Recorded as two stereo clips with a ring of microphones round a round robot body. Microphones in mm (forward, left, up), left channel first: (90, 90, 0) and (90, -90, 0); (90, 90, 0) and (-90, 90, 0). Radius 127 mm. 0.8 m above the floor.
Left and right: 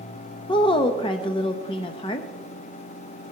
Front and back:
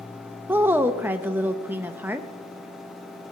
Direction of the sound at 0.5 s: 115° left.